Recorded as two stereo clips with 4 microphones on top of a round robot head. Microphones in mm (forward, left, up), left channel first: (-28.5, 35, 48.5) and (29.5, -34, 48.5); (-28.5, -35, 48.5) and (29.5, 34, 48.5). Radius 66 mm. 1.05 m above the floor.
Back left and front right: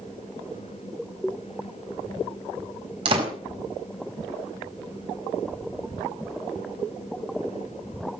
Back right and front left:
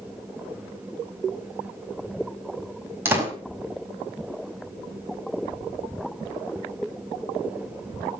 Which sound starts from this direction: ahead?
A door slam, at 3.0 s.